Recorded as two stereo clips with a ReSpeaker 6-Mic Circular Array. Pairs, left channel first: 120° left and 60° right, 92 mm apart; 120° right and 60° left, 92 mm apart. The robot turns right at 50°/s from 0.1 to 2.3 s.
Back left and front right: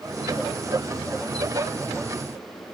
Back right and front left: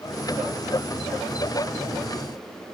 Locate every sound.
Only background noise.